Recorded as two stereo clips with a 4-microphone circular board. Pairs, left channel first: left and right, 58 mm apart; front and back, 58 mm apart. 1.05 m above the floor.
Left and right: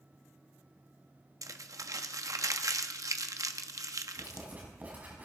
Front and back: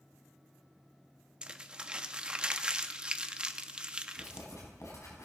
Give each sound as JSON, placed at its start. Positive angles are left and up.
{"t": 1.4, "sound": "crumpling", "azimuth_deg": -110, "distance_m": 0.9}
{"t": 4.2, "sound": "writing", "azimuth_deg": -30, "distance_m": 5.5}